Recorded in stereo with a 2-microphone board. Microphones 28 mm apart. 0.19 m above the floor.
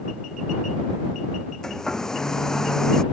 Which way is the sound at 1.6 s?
20° left (ahead or behind).